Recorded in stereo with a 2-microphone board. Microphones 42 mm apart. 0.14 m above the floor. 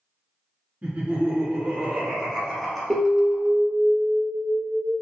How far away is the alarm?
About 1.6 m.